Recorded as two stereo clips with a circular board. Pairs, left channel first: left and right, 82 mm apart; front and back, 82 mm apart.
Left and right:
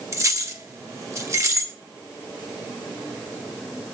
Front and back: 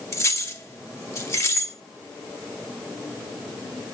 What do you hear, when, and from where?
0.1 s keys jangling: 50° right, 1.0 m